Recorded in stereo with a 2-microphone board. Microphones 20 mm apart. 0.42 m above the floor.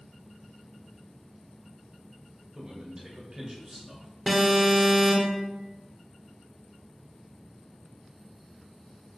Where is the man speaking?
35° right (ahead or behind), 1.4 m.